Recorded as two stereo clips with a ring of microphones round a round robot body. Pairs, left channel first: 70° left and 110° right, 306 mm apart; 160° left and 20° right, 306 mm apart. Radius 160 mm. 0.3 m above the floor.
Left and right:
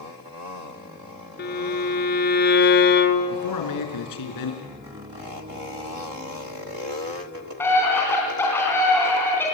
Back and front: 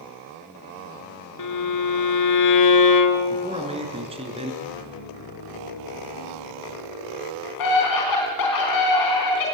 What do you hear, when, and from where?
1.4 s a violin: 130° left, 2 m
3.3 s a man speaking: 50° left, 4.5 m
4.6 s a piano: straight behind, 4.5 m
7.6 s a scream: 150° left, 3.5 m